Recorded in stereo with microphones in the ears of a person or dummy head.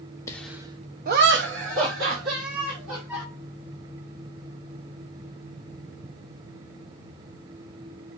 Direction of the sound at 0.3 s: 15° left (ahead or behind).